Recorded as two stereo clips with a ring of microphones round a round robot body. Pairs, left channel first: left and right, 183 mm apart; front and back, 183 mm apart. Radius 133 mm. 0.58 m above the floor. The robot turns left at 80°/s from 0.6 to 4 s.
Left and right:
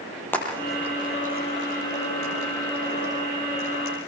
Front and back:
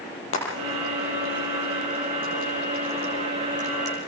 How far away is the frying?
About 8 m.